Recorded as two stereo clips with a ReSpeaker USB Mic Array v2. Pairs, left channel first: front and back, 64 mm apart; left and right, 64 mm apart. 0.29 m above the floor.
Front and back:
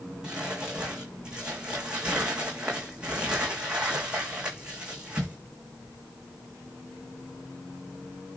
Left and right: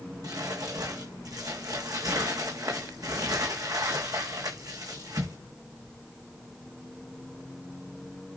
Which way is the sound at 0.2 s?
105° right.